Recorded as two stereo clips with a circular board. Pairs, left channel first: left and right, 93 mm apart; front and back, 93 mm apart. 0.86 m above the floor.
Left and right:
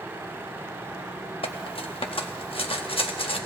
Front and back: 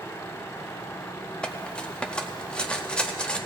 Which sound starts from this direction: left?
Cutlery clinking, at 1.4 s.